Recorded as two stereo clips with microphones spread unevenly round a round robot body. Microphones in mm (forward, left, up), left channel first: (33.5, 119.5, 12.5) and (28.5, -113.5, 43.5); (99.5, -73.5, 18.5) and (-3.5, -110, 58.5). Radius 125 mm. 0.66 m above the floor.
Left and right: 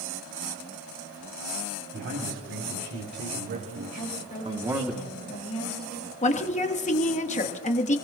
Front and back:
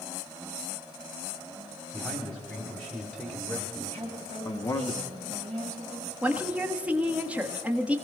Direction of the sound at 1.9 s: 60° right.